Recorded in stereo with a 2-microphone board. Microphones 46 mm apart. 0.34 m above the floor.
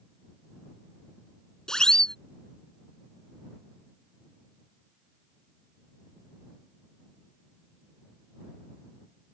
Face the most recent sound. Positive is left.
turn(degrees=15)  # may be behind; listen again after turning